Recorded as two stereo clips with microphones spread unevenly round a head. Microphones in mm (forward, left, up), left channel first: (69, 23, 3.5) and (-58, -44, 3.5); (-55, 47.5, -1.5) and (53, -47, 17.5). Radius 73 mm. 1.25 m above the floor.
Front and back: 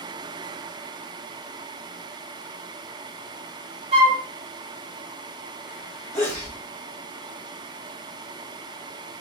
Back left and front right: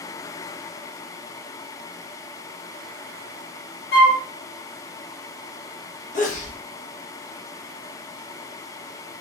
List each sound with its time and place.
3.9 s a flute: 155° left, 1.2 m
6.1 s a sneeze: 100° left, 1.4 m